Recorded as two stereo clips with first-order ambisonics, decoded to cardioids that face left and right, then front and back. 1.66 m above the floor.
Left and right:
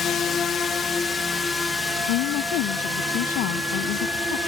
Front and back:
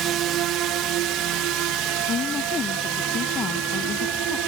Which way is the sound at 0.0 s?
150° left.